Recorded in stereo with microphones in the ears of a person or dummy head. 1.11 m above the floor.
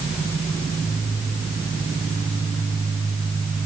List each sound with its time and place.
Only background noise.